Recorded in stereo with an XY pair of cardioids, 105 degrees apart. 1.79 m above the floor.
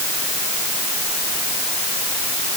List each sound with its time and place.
Only background noise.